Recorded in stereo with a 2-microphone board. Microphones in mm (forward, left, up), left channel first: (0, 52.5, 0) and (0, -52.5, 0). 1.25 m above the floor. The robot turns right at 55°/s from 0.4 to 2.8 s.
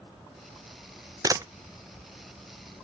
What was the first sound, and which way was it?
A camera shutter, 40° right (ahead or behind).